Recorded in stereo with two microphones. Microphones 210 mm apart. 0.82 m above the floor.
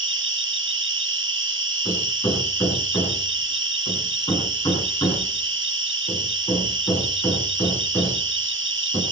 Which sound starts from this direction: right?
An insect, at 0.0 s.